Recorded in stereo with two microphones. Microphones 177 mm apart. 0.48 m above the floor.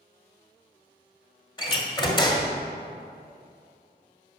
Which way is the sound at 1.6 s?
30° left (ahead or behind).